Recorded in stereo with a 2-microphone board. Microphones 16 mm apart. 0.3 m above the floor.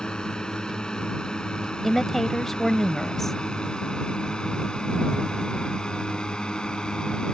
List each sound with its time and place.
0.0 s a drone: 60° left (ahead or behind); by 7.3 s 65° left (ahead or behind)
1.8 s a woman speaking: 20° left (ahead or behind)